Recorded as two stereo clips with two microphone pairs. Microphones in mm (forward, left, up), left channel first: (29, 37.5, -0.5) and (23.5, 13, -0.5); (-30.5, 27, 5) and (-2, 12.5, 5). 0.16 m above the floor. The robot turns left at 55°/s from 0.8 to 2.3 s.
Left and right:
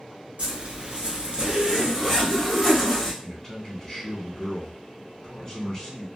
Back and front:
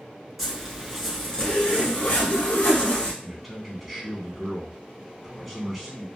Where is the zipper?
110° right, 1.4 m; by 3.1 s 165° left, 1.4 m.